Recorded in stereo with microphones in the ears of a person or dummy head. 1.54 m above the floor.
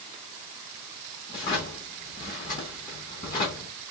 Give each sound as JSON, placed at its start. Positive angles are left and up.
{"t": 1.3, "sound": "a drawer", "side_deg": 20, "distance_m": 1.0}